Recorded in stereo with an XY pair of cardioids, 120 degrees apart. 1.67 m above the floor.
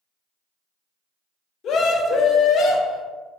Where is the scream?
55° left, 0.8 m.